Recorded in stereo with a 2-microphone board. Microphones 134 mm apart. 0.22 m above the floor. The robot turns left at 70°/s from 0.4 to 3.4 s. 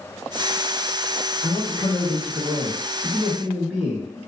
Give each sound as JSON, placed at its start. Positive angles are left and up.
{"t": 1.4, "sound": "a man speaking", "side_deg": 25, "distance_m": 1.2}